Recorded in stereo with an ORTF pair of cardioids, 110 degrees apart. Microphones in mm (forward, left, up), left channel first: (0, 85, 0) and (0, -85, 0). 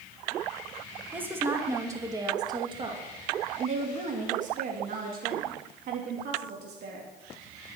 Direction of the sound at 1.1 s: 10° right.